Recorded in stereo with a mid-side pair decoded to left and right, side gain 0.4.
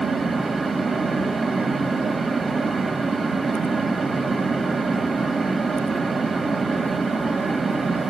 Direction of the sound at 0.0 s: 40° right.